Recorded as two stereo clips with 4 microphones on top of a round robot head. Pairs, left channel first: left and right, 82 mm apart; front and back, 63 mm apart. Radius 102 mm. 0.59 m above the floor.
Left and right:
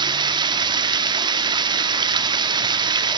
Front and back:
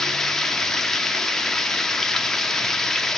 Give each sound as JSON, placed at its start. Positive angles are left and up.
{"t": 0.0, "sound": "running water", "azimuth_deg": -85, "distance_m": 0.7}